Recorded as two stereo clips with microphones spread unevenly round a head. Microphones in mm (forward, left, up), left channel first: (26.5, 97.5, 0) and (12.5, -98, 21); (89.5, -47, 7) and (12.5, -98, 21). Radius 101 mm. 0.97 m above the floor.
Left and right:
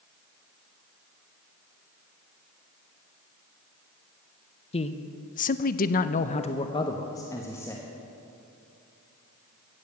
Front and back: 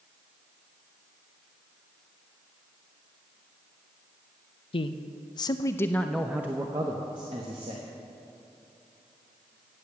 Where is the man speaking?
30° left, 0.8 m; by 7.9 s 165° left, 1.2 m.